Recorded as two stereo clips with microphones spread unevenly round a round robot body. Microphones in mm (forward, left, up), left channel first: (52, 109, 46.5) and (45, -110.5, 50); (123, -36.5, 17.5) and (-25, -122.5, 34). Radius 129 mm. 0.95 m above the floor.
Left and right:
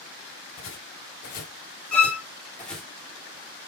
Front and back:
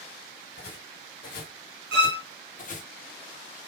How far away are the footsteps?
About 1.5 m.